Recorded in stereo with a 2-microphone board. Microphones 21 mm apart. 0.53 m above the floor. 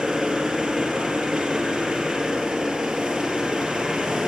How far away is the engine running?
About 9.5 m.